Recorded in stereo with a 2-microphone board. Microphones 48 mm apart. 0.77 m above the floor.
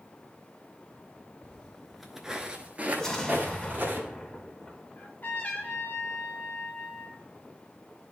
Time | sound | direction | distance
1.4 | footsteps | 20° left (ahead or behind) | 0.8 m
3.0 | an explosion | 15° left (ahead or behind) | 1.1 m
5.0 | a trumpet | 50° left (ahead or behind) | 1.4 m